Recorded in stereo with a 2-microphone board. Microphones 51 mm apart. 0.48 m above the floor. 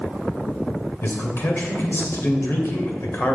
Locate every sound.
1.0 s a man speaking: 50° left (ahead or behind), 2 m